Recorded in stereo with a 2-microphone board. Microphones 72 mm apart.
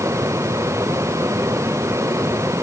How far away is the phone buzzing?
No phone buzzing in this recording.